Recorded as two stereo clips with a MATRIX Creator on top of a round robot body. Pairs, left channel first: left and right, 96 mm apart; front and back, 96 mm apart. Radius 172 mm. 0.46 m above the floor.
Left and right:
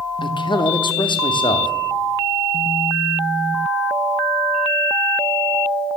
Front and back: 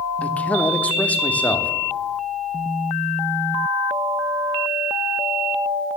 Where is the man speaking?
75° left, 1.3 m.